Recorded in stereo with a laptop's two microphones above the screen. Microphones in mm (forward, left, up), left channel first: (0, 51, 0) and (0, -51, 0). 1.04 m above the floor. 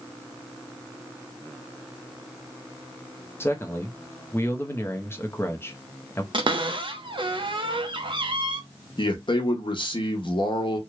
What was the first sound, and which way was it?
A man speaking, 20° left (ahead or behind).